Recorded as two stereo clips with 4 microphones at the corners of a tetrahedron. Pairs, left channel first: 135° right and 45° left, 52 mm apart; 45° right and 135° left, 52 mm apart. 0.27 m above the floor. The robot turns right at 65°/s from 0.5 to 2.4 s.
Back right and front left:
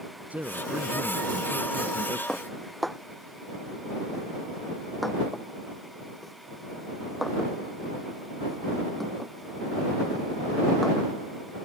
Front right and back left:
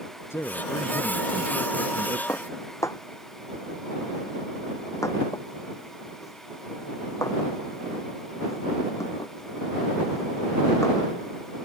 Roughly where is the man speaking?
Ahead.